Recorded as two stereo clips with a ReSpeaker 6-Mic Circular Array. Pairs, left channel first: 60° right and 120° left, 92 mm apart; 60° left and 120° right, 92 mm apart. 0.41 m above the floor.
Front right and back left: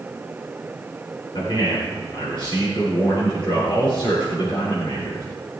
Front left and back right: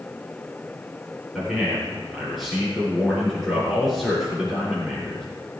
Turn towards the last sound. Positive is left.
turn(degrees=-35)